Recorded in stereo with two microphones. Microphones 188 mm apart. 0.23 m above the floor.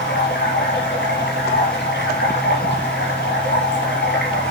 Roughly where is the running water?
Left.